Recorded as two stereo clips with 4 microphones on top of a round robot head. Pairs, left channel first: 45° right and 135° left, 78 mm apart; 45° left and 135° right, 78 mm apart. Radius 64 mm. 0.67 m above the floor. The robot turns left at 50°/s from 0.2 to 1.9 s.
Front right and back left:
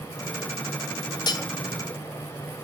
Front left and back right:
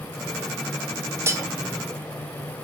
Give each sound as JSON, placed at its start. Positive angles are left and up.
{"t": 1.3, "sound": "cutlery clinking", "azimuth_deg": -80, "distance_m": 0.9}